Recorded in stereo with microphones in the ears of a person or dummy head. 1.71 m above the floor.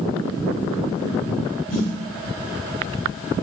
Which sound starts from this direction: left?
A snare drum, at 1.7 s.